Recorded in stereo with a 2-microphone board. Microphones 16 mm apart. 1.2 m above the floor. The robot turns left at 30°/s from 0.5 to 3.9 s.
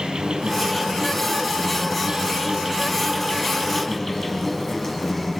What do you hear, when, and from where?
0.0 s an insect: 95° right, 3.5 m; by 5.4 s 160° left, 3.5 m